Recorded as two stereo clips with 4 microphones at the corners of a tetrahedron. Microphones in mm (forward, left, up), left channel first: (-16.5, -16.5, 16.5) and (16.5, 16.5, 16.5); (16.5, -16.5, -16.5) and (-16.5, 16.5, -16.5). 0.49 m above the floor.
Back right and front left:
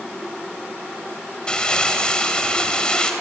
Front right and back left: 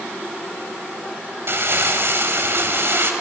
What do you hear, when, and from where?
1.5 s crumpling: 155° left, 3 m